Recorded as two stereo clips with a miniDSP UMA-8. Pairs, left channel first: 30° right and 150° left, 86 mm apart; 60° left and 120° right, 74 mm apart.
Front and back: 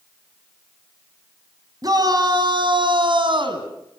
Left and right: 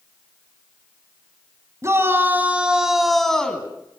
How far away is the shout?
About 2.5 m.